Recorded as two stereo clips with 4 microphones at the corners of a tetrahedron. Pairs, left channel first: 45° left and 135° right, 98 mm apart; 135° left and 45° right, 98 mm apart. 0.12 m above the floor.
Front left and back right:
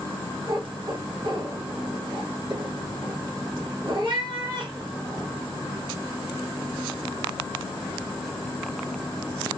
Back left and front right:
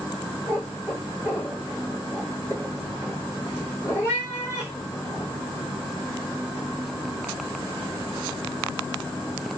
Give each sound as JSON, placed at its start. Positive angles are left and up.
{"t": 0.5, "sound": "a cat meowing", "azimuth_deg": -160, "distance_m": 2.5}